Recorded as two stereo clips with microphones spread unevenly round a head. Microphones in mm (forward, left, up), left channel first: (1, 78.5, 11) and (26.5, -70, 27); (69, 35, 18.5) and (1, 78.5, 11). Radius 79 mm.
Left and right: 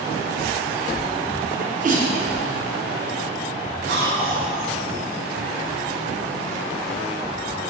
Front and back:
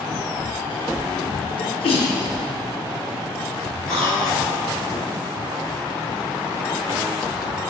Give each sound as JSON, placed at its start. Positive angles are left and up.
{"t": 1.6, "sound": "a sneeze", "azimuth_deg": -40, "distance_m": 0.8}
{"t": 3.9, "sound": "a cough", "azimuth_deg": -120, "distance_m": 1.5}